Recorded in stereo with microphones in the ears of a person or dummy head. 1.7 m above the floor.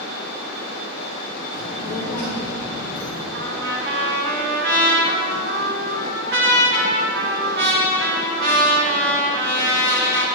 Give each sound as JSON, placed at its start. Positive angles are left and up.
{"t": 1.5, "sound": "a child speaking", "side_deg": 30, "distance_m": 1.2}
{"t": 3.3, "sound": "a trumpet", "side_deg": -55, "distance_m": 2.0}